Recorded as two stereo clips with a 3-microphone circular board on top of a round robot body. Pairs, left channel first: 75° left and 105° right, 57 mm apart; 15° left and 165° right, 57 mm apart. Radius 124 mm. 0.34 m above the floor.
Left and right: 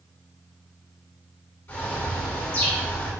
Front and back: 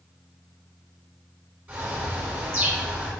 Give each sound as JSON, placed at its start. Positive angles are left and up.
{"t": 1.7, "sound": "a bird", "azimuth_deg": 140, "distance_m": 5.0}